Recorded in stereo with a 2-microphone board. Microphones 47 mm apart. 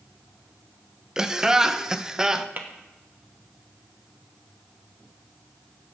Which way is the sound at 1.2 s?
15° right (ahead or behind).